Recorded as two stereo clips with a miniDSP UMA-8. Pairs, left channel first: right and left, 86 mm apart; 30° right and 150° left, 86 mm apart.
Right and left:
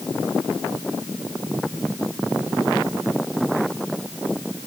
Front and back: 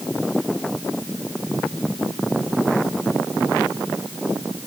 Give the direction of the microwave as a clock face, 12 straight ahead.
I don't hear a microwave.